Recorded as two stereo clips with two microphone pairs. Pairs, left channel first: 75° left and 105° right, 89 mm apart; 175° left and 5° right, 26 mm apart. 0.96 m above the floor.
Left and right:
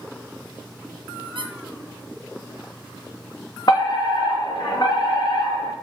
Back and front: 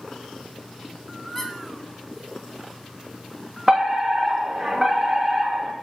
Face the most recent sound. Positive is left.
turn(degrees=60)